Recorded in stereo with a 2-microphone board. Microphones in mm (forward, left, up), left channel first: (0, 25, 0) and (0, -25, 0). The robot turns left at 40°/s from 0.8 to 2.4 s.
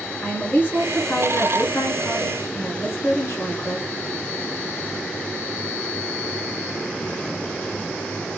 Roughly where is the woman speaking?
Behind left.